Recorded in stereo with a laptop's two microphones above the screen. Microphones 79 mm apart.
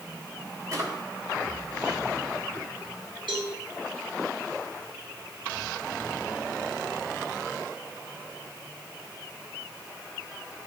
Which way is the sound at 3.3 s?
85° right.